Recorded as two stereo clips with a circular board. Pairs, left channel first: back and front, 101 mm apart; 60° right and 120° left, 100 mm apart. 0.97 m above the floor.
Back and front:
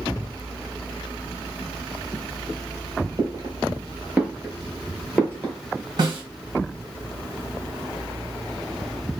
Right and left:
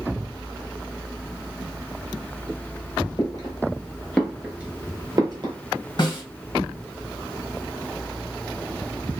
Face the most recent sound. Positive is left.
turn(degrees=-30)